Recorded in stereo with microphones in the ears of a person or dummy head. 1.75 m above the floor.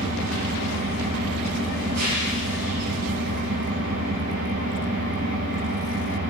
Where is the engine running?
75° right (ahead or behind), 9 m.